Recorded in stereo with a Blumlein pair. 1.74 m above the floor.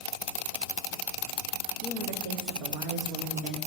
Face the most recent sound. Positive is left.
turn(degrees=-40)